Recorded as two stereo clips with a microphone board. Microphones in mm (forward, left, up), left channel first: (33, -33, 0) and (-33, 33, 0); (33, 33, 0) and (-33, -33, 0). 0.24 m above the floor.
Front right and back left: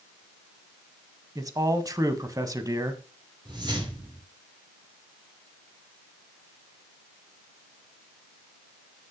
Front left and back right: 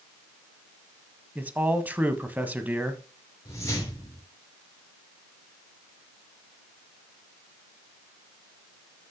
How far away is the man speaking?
About 1.4 m.